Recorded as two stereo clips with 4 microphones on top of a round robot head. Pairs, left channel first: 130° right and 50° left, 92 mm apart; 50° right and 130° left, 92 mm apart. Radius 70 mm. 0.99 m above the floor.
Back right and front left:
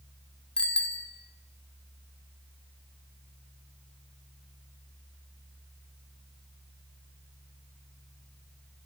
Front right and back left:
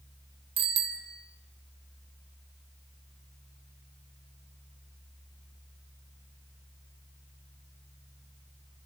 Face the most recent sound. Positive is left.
turn(degrees=150)